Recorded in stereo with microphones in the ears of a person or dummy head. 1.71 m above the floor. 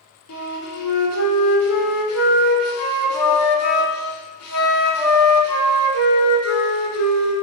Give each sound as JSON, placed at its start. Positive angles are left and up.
{"t": 0.3, "sound": "a flute", "side_deg": 90, "distance_m": 0.9}